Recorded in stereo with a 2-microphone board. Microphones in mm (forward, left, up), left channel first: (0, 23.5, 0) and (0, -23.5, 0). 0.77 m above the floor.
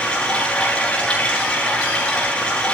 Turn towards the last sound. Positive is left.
turn(degrees=20)  # may be behind; listen again after turning